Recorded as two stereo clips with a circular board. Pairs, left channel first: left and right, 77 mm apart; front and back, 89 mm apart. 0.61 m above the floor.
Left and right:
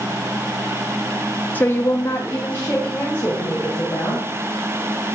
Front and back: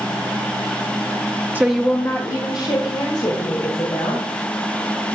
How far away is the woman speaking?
About 0.7 m.